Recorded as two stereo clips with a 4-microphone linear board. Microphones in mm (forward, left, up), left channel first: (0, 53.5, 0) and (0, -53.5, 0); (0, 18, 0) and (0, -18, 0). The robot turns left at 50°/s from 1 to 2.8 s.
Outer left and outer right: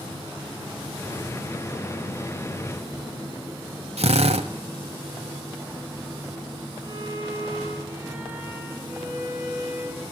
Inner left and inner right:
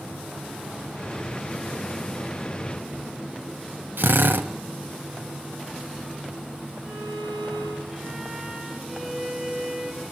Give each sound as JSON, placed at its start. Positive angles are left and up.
{"t": 4.0, "sound": "a drill", "side_deg": -85, "distance_m": 1.1}
{"t": 6.8, "sound": "a violin", "side_deg": -25, "distance_m": 5.5}